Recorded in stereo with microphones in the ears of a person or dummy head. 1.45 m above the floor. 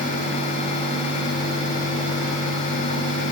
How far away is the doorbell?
No doorbell in this recording.